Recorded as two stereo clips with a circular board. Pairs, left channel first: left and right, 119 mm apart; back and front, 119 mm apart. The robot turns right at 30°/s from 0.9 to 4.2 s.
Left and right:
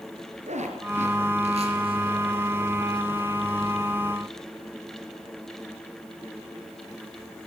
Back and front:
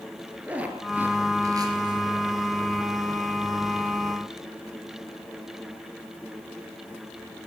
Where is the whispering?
No whispering in this recording.